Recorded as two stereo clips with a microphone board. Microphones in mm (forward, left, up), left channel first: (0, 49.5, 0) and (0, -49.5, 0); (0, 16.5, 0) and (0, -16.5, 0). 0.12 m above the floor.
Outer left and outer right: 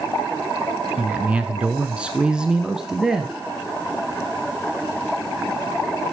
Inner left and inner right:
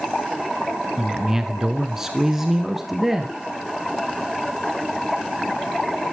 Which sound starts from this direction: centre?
A man speaking, at 1.0 s.